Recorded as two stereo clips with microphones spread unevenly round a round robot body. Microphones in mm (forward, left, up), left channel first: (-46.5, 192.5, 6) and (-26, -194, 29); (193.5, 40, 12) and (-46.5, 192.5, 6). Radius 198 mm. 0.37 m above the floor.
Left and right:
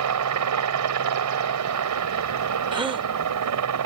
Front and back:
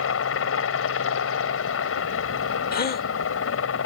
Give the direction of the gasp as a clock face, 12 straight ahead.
12 o'clock.